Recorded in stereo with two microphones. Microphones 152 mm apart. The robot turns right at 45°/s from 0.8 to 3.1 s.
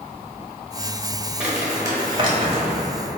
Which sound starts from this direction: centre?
Crumpling, at 1.4 s.